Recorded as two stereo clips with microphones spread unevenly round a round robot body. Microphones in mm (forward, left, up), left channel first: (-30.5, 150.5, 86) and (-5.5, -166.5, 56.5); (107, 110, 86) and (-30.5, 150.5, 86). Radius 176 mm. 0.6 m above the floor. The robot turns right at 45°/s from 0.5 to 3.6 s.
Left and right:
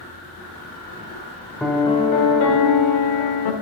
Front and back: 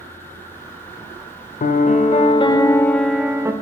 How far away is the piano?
About 0.7 m.